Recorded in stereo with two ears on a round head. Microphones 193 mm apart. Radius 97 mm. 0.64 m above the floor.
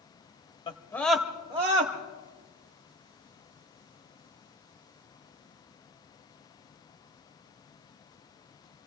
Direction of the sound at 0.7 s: 25° left (ahead or behind).